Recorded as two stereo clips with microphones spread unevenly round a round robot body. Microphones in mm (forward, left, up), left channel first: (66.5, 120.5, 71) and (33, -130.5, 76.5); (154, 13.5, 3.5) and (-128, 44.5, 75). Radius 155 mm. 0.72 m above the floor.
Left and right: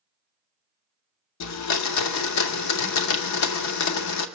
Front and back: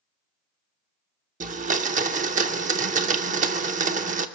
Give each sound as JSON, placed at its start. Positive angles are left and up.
{"t": 1.4, "sound": "a blender", "azimuth_deg": 110, "distance_m": 0.8}